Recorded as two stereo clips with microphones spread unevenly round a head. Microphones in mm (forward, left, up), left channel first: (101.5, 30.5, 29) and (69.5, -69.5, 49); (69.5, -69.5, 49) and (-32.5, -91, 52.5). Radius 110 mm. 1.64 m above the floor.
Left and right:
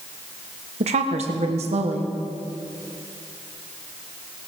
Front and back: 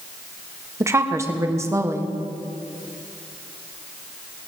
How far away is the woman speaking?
About 1.3 m.